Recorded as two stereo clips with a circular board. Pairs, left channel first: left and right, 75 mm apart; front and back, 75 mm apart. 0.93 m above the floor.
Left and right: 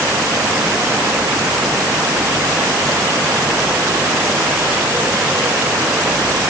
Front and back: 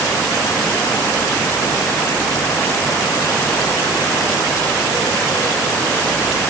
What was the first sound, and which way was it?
Only background noise.